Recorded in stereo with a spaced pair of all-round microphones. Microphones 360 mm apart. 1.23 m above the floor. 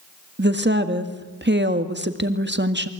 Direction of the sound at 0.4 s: 30° right (ahead or behind).